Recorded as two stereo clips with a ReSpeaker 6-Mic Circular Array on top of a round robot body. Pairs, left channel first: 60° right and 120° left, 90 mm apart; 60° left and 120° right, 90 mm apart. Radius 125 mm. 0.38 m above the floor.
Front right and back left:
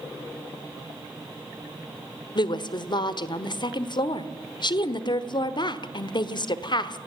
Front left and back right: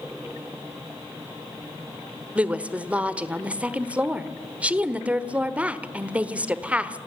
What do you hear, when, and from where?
2.4 s a woman speaking: 45° right, 1.4 m